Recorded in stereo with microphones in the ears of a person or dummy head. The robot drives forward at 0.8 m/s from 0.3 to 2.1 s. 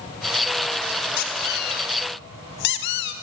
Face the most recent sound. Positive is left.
turn(degrees=60)  # may be behind; listen again after turning